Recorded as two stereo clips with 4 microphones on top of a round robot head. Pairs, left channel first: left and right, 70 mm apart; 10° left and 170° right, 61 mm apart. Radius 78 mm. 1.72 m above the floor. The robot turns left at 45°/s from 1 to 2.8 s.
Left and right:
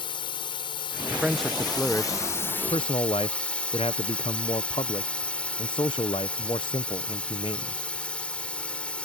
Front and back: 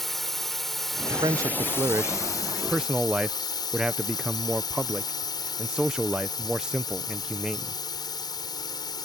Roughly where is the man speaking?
Behind.